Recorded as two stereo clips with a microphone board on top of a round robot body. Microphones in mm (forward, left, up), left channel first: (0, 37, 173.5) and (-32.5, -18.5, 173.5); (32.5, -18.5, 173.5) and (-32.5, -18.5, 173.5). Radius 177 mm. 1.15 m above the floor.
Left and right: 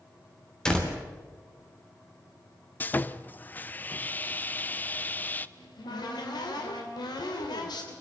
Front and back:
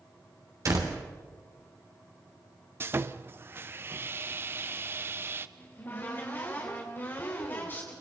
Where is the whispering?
No whispering in this recording.